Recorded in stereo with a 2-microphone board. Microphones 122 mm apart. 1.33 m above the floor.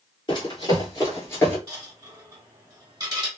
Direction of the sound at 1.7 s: 25° right (ahead or behind).